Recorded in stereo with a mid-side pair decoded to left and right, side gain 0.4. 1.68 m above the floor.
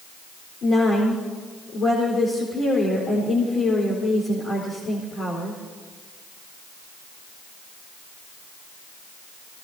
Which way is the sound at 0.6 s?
60° left.